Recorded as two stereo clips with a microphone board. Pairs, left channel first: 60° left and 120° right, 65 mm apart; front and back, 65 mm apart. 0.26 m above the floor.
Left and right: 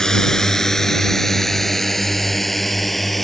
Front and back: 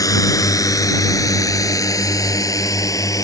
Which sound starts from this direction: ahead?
A drone, at 0.0 s.